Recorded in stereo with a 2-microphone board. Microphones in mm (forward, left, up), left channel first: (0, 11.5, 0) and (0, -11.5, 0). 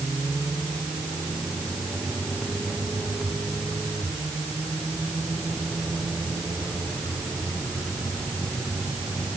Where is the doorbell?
No doorbell in this recording.